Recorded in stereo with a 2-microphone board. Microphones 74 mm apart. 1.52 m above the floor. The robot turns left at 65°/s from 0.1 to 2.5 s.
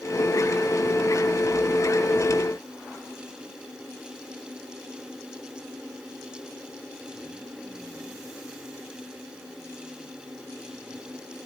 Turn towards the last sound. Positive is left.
No sound to turn to.